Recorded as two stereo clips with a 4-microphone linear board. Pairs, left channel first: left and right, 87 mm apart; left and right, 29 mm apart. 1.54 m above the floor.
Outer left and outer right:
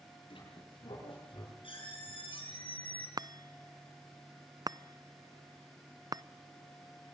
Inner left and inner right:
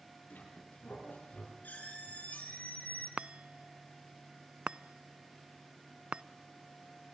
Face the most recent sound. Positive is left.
turn(degrees=-45)  # may be behind; listen again after turning